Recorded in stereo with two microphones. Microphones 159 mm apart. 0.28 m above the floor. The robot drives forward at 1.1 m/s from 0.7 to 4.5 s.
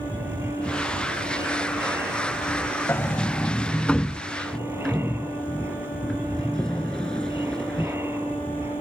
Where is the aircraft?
15° right (ahead or behind).